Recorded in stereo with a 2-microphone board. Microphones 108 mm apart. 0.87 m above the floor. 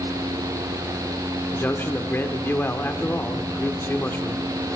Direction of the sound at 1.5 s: 20° left (ahead or behind).